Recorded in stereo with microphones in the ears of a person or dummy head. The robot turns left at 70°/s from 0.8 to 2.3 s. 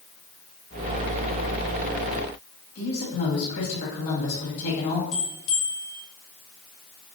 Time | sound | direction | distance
2.8 | a woman speaking | 65° left (ahead or behind) | 1.5 m
5.1 | a bell | 75° left (ahead or behind) | 1.2 m